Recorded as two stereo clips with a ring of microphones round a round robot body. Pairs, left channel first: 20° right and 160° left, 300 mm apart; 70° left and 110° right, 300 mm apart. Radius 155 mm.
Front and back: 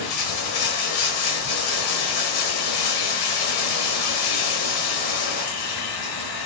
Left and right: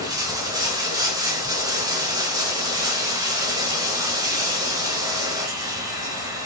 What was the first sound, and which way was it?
Running water, 35° right.